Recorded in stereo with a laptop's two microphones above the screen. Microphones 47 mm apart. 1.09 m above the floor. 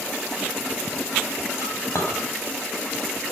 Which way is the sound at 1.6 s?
85° left.